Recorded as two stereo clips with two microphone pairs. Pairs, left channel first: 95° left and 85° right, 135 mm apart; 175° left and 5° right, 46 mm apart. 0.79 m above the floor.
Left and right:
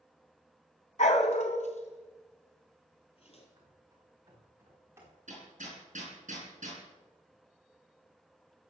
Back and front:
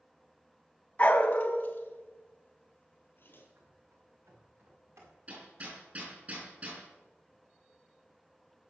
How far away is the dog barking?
About 1.3 m.